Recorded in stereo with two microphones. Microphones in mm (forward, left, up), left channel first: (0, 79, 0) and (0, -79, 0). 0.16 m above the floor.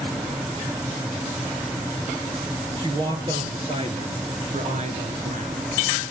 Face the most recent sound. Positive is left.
turn(degrees=-55)  # may be behind; listen again after turning